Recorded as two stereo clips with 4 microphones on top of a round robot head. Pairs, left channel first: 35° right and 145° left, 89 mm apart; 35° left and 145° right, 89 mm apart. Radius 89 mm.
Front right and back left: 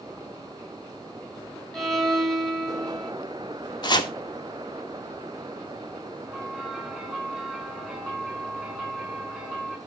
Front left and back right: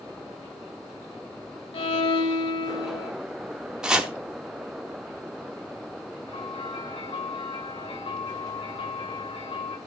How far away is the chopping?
About 1.6 m.